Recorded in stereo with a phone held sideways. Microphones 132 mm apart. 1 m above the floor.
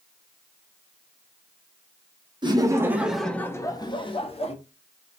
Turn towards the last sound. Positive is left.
turn(degrees=50)  # may be behind; listen again after turning